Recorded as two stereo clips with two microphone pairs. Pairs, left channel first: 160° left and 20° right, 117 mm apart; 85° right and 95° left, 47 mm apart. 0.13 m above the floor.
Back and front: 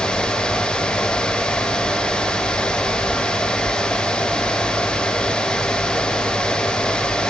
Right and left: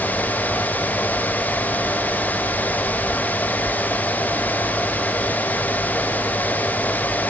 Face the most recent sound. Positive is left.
No sound to turn to.